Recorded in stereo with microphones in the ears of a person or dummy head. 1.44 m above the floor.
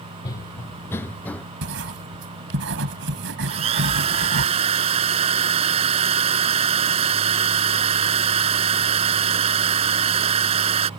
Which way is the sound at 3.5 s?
30° right (ahead or behind).